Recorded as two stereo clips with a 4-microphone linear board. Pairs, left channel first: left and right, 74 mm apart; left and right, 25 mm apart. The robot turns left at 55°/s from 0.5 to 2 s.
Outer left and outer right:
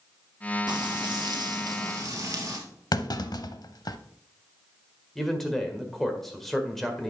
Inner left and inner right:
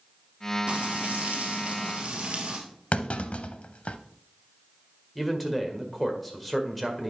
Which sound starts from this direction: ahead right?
Frying, at 0.7 s.